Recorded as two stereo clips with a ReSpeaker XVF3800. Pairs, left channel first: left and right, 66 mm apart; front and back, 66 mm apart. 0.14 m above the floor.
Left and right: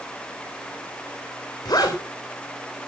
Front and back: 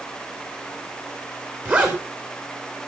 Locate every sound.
1.6 s a zipper: 115° left, 3.5 m